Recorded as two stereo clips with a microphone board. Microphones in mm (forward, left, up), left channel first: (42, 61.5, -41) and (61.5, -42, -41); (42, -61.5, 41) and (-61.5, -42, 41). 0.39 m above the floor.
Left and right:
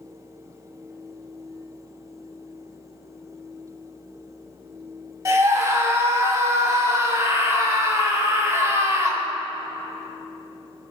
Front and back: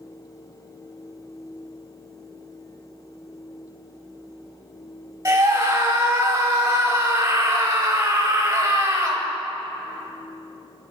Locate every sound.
5.2 s a scream: 130° right, 1.7 m